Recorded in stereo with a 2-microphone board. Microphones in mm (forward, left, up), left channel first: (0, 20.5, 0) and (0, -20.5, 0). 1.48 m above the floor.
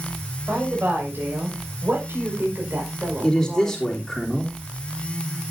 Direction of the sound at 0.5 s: 50° right (ahead or behind).